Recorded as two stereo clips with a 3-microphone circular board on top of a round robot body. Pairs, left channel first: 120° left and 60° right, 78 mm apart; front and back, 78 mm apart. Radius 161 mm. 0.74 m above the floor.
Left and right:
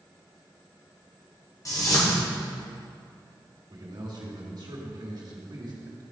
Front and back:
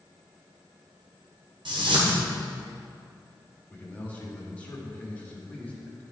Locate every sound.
1.6 s a whoosh: 170° left, 1.6 m
3.7 s a man speaking: 70° right, 2 m